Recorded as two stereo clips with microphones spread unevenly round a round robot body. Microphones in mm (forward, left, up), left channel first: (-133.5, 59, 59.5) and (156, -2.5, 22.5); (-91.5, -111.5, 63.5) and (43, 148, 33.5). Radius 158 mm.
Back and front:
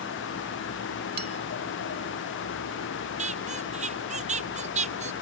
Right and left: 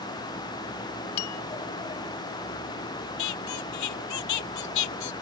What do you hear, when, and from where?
1.2 s a bell: 70° right
3.2 s a squeak: 80° right